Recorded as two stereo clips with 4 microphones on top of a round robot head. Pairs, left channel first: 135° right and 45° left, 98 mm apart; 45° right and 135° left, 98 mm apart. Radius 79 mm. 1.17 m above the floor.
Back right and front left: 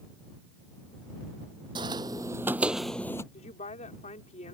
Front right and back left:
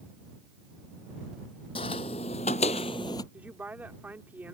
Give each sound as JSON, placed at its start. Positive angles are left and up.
{"t": 1.8, "sound": "footsteps", "azimuth_deg": -5}
{"t": 3.3, "sound": "a woman speaking", "azimuth_deg": -145}